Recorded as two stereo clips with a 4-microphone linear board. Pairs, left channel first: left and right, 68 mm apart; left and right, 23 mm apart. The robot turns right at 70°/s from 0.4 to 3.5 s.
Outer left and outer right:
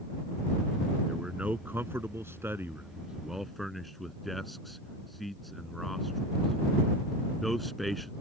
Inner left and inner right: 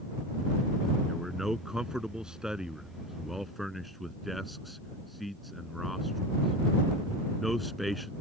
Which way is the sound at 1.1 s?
10° right (ahead or behind).